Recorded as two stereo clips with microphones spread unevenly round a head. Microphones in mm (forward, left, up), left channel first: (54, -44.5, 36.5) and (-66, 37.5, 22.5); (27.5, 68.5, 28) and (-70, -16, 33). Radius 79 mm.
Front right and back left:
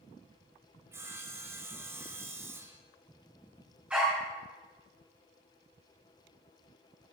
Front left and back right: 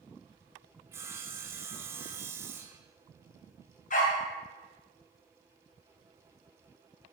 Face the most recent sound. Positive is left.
turn(degrees=60)